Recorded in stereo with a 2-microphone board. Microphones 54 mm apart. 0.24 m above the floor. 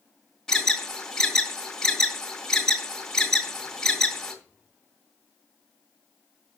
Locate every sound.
0.5 s an alarm: 10° left (ahead or behind), 2 m